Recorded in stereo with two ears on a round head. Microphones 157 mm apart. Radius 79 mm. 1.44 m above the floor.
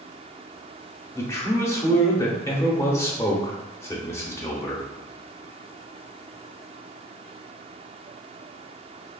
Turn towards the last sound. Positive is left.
turn(degrees=15)  # may be behind; listen again after turning